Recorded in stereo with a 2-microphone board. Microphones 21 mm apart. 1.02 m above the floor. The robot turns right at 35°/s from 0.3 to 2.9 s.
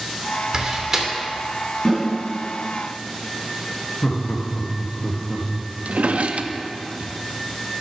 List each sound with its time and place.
0.5 s a door slam: 35° right (ahead or behind), 2 m; by 1.1 s 15° right (ahead or behind), 2 m
1.9 s a snare drum: 15° left (ahead or behind), 4.5 m; by 2.0 s 25° left (ahead or behind), 4.5 m
4.0 s laughter: 65° left (ahead or behind), 1.7 m
5.8 s a drawer: 75° right (ahead or behind), 0.8 m